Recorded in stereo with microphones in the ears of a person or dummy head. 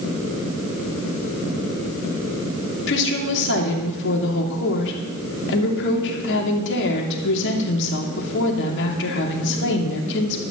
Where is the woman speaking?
65° left (ahead or behind), 2.5 m.